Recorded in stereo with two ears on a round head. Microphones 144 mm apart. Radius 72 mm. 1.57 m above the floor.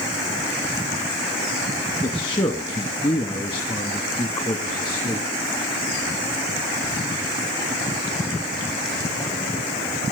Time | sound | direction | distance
2.0 | a man speaking | 25° left (ahead or behind) | 2 m